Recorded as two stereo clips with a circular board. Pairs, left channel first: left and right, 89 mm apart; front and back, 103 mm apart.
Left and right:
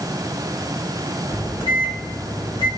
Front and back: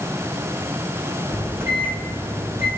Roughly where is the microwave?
Behind left.